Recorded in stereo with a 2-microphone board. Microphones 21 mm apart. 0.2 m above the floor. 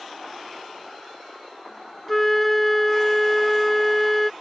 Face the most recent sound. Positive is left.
turn(degrees=10)  # may be behind; listen again after turning